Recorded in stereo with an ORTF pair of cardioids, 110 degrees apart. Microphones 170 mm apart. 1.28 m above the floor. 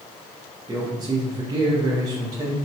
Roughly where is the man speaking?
Ahead right.